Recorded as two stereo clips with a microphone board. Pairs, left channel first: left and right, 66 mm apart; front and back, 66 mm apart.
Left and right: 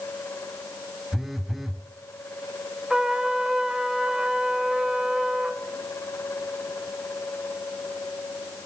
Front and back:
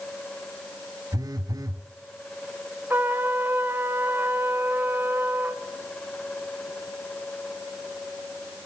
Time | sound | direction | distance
1.1 | a phone buzzing | 175° right | 1.0 m
2.9 | a trumpet | 160° right | 1.0 m